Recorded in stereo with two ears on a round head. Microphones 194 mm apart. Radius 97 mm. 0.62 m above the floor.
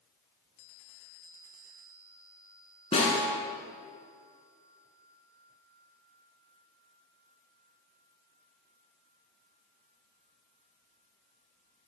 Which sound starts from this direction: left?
A snare drum, at 2.9 s.